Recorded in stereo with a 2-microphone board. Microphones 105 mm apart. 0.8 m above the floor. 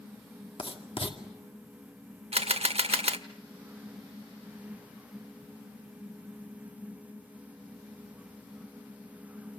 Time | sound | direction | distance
0.6 | writing | 65° left (ahead or behind) | 2 m
2.3 | a camera shutter | 75° right (ahead or behind) | 0.9 m